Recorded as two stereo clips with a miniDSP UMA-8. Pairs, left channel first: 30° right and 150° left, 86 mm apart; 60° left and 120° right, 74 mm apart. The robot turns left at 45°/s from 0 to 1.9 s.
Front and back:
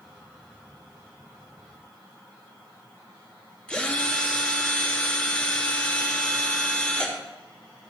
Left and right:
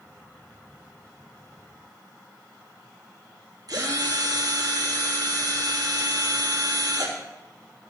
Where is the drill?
105° right, 3 m.